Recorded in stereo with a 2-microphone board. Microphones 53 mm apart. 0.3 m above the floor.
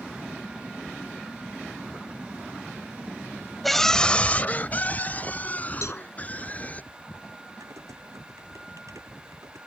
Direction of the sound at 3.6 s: Centre (ahead or behind).